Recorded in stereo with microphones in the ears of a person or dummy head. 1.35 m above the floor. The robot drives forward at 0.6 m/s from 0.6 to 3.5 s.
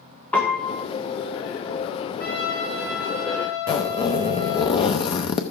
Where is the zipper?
25° left (ahead or behind), 0.7 m.